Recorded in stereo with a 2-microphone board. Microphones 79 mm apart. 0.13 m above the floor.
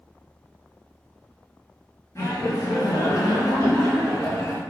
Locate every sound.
2.1 s laughter: 40° left (ahead or behind), 1.6 m; by 4.6 s 35° left (ahead or behind), 2.5 m